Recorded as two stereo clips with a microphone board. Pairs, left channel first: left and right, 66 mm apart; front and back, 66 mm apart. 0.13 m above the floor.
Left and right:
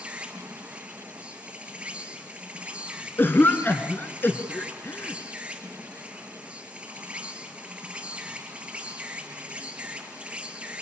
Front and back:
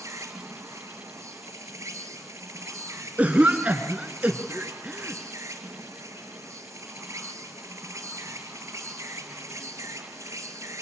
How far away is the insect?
About 2.5 m.